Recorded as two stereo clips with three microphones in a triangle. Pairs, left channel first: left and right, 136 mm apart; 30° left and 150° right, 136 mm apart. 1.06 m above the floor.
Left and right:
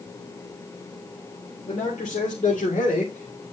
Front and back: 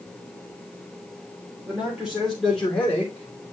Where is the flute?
No flute in this recording.